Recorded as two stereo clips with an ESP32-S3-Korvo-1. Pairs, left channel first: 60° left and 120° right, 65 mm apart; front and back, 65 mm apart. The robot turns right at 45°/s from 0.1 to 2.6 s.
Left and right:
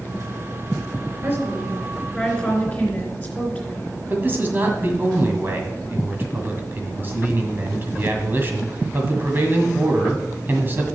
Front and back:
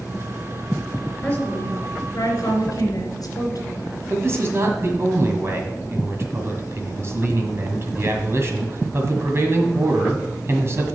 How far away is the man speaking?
About 1.7 m.